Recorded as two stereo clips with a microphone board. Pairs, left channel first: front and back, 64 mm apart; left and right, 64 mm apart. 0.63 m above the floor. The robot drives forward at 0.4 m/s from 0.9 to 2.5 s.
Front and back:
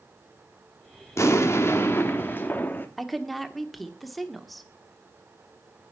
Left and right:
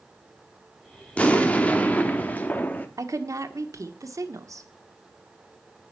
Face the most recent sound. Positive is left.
turn(degrees=-90)